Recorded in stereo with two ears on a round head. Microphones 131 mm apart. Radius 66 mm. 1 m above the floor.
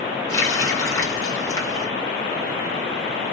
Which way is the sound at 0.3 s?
20° left (ahead or behind).